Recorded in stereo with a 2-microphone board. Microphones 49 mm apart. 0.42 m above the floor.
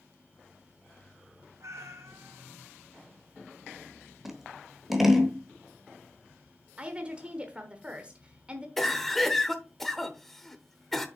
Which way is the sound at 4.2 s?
5° right (ahead or behind).